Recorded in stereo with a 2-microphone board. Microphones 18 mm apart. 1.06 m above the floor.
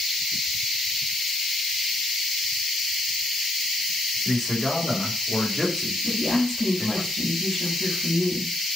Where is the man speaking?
5° left (ahead or behind), 4.5 m.